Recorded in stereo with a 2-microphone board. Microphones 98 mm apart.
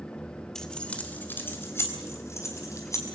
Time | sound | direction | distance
0.6 | keys jangling | 5° left (ahead or behind) | 2.0 m